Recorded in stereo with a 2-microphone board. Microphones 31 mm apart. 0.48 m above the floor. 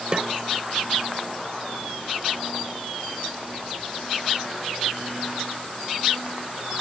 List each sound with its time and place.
0.1 s a snare drum: 30° right (ahead or behind)